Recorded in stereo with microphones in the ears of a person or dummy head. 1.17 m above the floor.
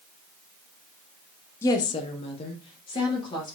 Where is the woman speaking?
15° left (ahead or behind), 0.5 m; by 3.5 s 25° left (ahead or behind), 1.5 m.